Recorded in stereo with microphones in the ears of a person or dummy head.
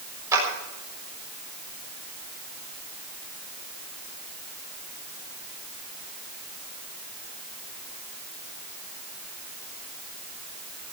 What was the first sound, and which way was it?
A clap, 20° right (ahead or behind).